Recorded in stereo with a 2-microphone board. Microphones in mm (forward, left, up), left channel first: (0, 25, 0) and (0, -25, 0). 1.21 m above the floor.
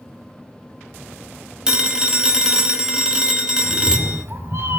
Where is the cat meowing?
55° right (ahead or behind), 1.4 m.